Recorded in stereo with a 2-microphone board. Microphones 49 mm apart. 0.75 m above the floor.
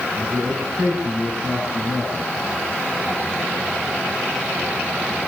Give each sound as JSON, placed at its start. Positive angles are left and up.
{"t": 0.1, "sound": "a man speaking", "side_deg": -60, "distance_m": 5.5}